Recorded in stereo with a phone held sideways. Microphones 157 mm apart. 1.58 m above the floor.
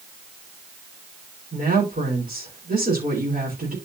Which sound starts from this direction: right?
A woman speaking, at 1.5 s.